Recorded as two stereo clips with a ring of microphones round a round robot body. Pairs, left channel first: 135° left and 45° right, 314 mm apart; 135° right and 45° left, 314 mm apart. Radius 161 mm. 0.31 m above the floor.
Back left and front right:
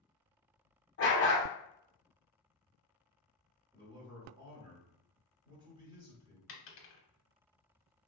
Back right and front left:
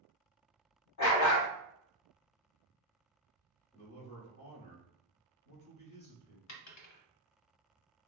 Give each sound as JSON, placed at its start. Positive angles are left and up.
{"t": 1.0, "sound": "a dog barking", "azimuth_deg": -170, "distance_m": 0.8}
{"t": 3.7, "sound": "a man speaking", "azimuth_deg": -105, "distance_m": 1.3}
{"t": 6.5, "sound": "a dropped coin", "azimuth_deg": -175, "distance_m": 0.7}